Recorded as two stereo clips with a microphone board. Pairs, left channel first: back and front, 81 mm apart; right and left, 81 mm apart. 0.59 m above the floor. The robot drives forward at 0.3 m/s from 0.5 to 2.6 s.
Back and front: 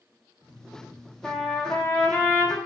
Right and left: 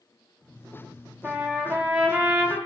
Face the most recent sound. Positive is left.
turn(degrees=150)